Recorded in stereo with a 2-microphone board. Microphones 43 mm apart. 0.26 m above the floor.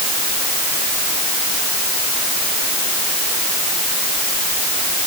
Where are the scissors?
I don't hear scissors.